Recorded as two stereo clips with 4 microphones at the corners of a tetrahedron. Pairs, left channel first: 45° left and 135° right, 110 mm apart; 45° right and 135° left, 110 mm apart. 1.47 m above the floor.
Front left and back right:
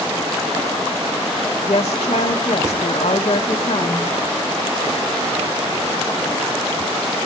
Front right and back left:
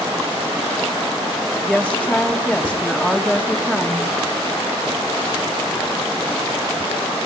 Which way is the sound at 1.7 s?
45° left.